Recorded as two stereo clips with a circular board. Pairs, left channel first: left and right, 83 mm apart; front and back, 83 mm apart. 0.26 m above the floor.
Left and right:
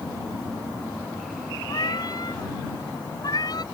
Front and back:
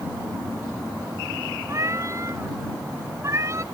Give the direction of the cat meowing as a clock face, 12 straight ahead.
8 o'clock.